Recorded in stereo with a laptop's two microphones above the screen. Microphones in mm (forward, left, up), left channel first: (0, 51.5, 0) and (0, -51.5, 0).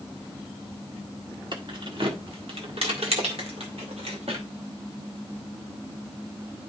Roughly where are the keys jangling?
Right.